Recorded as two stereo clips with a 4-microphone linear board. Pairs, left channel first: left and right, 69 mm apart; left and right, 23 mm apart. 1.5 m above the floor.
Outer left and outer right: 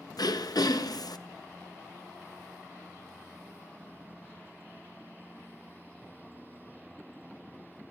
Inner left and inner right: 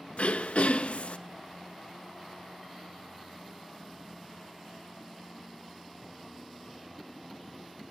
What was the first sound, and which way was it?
Throat clearing, 65° left (ahead or behind).